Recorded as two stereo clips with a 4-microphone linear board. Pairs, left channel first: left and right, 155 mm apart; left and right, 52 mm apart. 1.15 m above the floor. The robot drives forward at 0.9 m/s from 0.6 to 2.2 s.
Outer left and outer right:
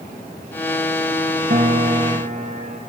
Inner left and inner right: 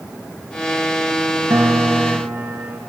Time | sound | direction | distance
1.5 | a piano | 70° right (ahead or behind) | 1.4 m